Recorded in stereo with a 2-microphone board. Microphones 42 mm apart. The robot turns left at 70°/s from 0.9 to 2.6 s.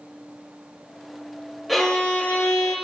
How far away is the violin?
About 1.4 m.